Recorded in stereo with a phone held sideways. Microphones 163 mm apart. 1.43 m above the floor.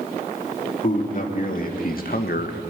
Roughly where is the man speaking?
Left.